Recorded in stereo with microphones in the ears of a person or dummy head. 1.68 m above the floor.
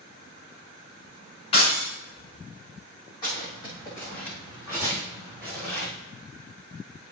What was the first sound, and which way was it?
Breaking glass, 30° left (ahead or behind).